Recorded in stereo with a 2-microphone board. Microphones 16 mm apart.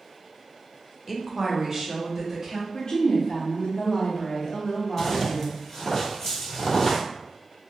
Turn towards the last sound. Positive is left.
turn(degrees=25)  # may be behind; listen again after turning